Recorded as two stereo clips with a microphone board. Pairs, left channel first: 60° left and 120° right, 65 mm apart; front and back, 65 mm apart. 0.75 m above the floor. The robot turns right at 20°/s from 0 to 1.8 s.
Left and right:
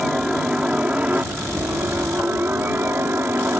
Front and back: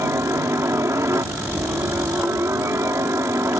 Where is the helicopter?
160° left; by 3.6 s 165° right.